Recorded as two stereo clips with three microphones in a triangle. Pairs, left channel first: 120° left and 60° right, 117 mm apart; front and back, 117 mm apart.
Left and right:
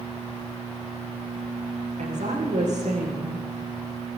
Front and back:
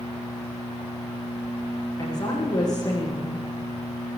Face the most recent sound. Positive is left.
turn(degrees=-55)